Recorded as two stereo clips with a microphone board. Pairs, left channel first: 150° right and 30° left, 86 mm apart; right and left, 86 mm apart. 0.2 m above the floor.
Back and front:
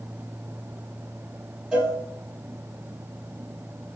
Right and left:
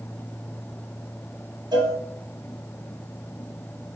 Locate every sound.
1.7 s a cowbell: 110° left, 1.1 m